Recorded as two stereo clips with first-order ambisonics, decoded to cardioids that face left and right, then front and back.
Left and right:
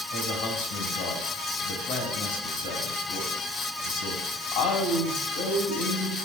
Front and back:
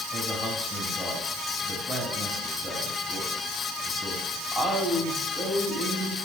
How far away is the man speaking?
About 3.5 m.